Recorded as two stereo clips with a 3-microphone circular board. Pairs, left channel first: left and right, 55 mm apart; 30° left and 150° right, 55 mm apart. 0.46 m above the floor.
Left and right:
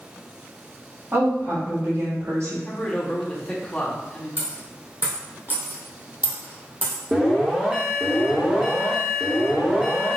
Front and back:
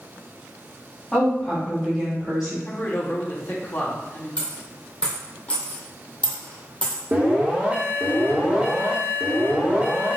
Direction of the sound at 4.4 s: 40° right.